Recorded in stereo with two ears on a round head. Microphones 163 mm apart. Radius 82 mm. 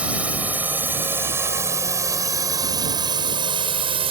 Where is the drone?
10° right (ahead or behind); by 4.1 s 35° right (ahead or behind).